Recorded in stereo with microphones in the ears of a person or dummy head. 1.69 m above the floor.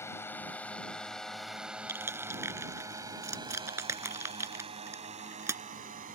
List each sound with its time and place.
0.0 s a drone: 10° left (ahead or behind); by 6.2 s 45° right (ahead or behind)
1.9 s crushing: 15° right (ahead or behind)